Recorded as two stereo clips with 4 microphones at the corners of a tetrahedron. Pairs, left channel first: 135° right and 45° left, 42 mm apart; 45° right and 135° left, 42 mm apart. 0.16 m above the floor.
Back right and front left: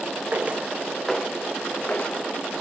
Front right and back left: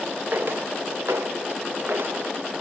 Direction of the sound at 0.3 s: 95° left.